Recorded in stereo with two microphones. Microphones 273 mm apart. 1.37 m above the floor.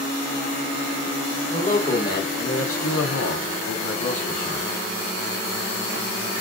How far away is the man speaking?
About 1.0 m.